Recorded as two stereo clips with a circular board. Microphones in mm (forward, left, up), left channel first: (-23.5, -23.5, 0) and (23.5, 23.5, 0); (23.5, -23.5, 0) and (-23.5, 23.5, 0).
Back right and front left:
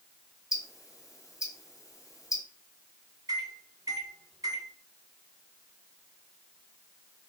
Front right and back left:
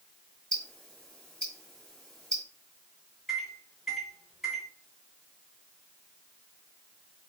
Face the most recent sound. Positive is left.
turn(degrees=45)